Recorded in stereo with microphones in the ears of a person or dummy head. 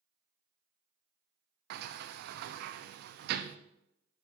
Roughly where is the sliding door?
Right.